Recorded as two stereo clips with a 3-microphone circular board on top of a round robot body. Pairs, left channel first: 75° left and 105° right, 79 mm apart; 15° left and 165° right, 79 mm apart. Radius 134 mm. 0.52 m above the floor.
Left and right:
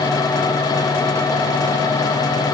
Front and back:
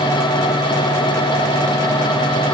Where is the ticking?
No ticking in this recording.